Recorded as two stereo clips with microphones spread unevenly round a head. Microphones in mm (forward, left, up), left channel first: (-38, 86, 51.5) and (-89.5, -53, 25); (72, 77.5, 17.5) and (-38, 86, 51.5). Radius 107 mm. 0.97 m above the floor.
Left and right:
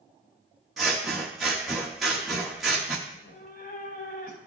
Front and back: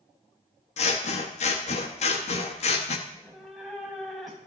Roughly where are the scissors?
Ahead right.